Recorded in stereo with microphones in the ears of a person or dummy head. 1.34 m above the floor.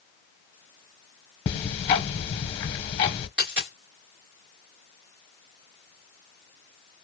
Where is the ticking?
25° left (ahead or behind), 0.8 m.